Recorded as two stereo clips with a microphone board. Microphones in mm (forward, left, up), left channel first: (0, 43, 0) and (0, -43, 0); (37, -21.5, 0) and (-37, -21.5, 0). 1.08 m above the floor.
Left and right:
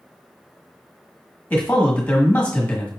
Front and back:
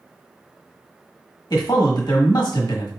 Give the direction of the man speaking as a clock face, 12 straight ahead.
11 o'clock.